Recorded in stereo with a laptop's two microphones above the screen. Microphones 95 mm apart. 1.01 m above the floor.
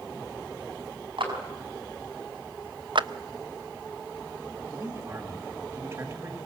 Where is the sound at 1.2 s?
65° right (ahead or behind), 5.5 m.